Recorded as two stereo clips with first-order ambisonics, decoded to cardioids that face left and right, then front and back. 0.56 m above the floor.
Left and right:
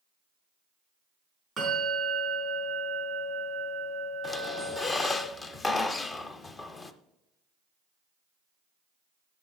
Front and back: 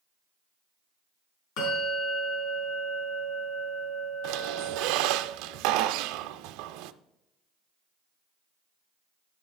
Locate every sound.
1.6 s a bell: 10° right, 5.5 m
4.2 s a squeak: 160° left, 0.5 m